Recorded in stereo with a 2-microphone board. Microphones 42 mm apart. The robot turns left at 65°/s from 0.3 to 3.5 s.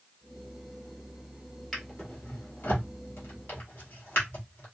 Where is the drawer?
5° left (ahead or behind), 1.8 m; by 4.7 s 55° left (ahead or behind), 1.8 m.